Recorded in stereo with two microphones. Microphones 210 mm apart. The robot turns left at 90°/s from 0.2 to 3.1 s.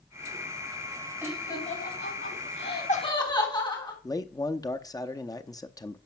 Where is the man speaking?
15° left (ahead or behind), 0.6 m.